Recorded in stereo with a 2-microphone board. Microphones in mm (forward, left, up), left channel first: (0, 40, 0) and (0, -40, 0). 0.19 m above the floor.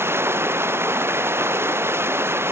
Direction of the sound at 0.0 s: 30° right (ahead or behind).